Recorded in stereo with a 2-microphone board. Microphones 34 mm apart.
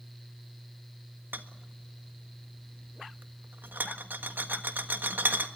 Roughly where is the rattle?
Right.